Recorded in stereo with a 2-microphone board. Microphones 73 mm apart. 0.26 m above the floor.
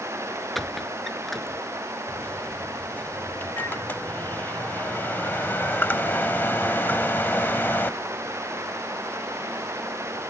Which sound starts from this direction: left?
A microwave, at 2.1 s.